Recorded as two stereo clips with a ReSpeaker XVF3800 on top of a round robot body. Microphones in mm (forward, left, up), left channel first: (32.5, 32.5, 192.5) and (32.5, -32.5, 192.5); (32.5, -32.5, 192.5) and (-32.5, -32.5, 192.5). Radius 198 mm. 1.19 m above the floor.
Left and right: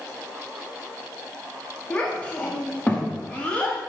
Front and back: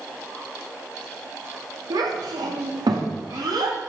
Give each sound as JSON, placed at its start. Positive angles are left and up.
{"t": 1.9, "sound": "a child speaking", "azimuth_deg": 165, "distance_m": 1.6}